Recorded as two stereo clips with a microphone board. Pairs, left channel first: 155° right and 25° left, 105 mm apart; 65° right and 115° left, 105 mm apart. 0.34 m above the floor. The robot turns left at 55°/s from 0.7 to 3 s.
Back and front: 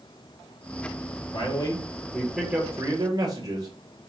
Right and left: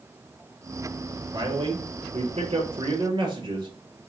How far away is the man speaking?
About 5.5 m.